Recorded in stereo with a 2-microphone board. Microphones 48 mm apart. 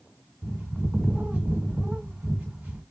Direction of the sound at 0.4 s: 35° right (ahead or behind).